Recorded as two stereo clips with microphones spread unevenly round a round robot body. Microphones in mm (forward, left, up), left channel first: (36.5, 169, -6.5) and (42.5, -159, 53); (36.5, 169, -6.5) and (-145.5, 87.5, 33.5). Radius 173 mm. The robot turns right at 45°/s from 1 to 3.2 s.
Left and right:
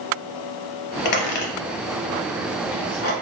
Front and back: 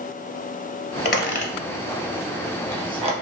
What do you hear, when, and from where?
1.1 s a squeak: 65° left, 0.7 m; by 3.1 s 155° left, 0.7 m